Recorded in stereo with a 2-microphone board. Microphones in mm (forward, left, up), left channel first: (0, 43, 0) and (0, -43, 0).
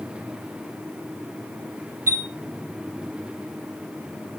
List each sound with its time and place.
2.1 s a chime: 25° right (ahead or behind), 2.5 m